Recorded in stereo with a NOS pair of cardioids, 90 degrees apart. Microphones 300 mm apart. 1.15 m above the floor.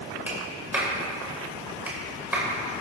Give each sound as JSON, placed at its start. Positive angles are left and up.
{"t": 0.3, "sound": "a clap", "azimuth_deg": -5, "distance_m": 5.0}